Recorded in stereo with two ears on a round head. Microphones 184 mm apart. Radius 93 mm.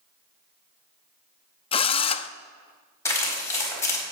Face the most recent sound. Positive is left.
turn(degrees=15)  # may be behind; listen again after turning